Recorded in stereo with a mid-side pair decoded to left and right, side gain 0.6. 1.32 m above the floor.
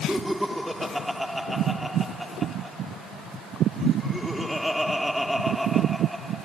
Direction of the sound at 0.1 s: Straight ahead.